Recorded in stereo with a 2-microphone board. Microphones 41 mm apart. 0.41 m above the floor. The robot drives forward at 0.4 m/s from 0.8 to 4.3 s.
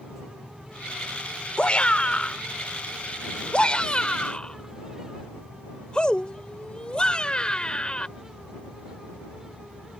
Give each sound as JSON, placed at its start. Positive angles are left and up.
{"t": 1.6, "sound": "a shout", "side_deg": 30}